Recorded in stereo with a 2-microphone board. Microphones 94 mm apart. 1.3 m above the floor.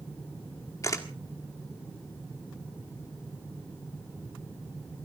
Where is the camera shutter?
35° left (ahead or behind), 1.6 m.